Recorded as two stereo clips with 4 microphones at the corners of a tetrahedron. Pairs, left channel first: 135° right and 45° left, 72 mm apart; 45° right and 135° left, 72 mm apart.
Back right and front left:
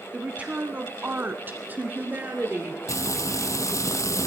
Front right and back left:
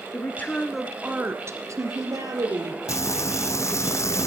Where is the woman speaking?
25° right, 1.6 m; by 2.8 s 115° left, 3.5 m.